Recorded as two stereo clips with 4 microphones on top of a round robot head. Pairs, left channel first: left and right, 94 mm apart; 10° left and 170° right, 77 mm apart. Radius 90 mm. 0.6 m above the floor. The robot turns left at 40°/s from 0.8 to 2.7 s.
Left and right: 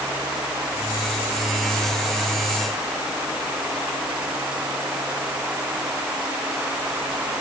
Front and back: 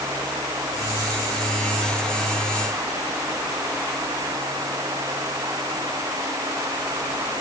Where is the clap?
I don't hear a clap.